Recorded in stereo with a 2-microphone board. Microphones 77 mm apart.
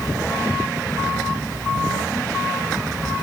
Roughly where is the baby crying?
I don't hear a baby crying.